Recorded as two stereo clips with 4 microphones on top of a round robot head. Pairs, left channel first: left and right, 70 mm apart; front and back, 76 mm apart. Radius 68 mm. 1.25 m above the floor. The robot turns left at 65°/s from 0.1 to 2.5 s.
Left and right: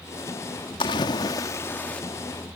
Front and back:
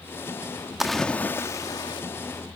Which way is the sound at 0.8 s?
95° left.